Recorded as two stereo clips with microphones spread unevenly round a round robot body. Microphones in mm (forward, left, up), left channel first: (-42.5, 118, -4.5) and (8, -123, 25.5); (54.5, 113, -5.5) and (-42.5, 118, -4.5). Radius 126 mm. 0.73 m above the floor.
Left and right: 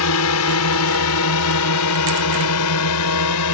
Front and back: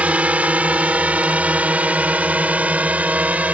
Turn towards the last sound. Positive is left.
turn(degrees=105)